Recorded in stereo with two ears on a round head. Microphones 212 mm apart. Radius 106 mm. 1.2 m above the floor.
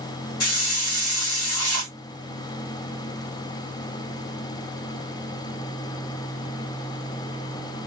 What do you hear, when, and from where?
0.4 s a hiss: 70° left (ahead or behind), 2.5 m